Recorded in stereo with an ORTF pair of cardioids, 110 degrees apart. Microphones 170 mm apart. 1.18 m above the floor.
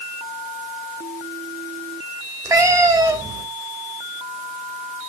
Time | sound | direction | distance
2.5 | a cat meowing | 20° right | 2.5 m